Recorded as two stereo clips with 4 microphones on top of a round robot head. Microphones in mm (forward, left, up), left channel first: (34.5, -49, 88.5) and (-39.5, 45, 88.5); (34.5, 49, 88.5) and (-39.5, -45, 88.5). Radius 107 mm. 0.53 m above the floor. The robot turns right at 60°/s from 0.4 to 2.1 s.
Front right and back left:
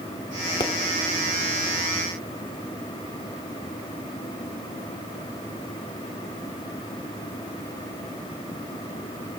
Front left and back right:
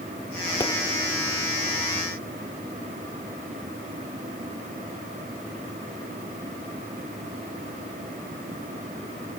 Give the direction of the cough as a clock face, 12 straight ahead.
I don't hear a cough.